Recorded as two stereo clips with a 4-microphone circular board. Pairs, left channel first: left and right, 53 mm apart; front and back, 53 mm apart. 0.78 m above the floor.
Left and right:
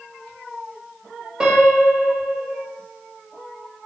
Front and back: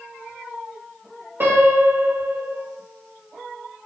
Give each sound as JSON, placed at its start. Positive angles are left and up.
{"t": 1.4, "sound": "a piano", "azimuth_deg": -160, "distance_m": 1.2}